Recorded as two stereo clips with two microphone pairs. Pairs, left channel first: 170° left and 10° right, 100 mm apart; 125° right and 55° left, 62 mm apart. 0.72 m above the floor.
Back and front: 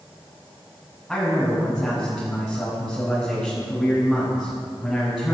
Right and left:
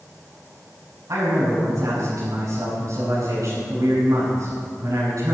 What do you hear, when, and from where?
1.1 s a man speaking: 80° left, 6.5 m